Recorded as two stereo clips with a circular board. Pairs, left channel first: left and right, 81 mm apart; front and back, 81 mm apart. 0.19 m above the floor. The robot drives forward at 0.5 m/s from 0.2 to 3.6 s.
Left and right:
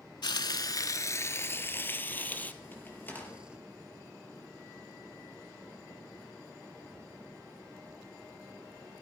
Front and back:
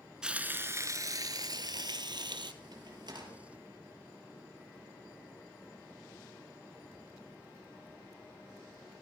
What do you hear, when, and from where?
0.2 s frying: 100° left, 0.5 m; by 2.5 s 160° left, 1.3 m
2.6 s a crack: 155° left, 4 m